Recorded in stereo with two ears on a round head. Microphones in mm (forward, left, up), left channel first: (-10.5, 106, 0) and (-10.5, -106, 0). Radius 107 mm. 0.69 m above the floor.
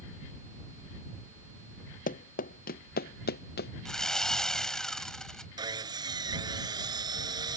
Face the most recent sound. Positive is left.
turn(degrees=-20)  # may be behind; listen again after turning